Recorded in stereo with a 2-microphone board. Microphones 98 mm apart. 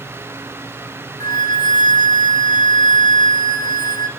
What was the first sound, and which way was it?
A flute, 50° left (ahead or behind).